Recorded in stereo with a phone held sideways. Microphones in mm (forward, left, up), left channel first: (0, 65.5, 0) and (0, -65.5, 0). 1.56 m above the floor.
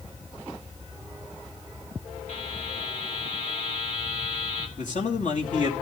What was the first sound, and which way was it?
A buzzer, 60° left (ahead or behind).